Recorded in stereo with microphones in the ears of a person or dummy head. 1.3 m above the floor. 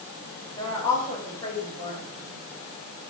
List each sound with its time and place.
0.6 s a woman speaking: 15° left (ahead or behind), 7 m